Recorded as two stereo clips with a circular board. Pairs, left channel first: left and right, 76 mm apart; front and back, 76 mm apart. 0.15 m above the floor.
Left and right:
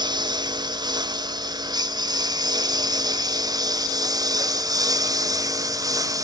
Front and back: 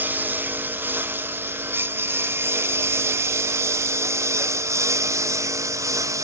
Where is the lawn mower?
115° right; by 6.2 s 130° right.